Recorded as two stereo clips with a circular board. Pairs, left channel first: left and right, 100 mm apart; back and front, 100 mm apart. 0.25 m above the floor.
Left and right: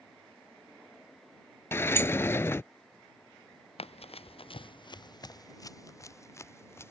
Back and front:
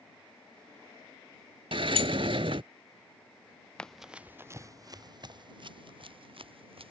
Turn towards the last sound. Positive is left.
turn(degrees=25)